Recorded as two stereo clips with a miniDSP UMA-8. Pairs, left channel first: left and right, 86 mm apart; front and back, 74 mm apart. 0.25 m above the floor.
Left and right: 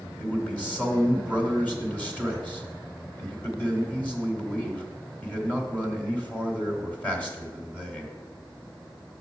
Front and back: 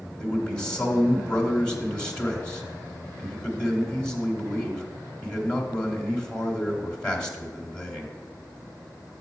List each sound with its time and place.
0.2 s a man speaking: 55° left, 1.3 m